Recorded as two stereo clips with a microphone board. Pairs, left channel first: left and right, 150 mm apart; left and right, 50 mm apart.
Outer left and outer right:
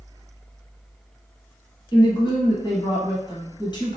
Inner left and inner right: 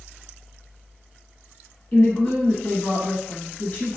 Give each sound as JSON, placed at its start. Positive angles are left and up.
{"t": 1.9, "sound": "a woman speaking", "side_deg": 30, "distance_m": 1.2}